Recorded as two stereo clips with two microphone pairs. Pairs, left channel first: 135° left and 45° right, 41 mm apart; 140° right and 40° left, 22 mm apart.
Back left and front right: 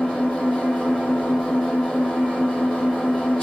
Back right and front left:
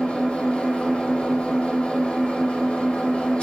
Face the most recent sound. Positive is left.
turn(degrees=-155)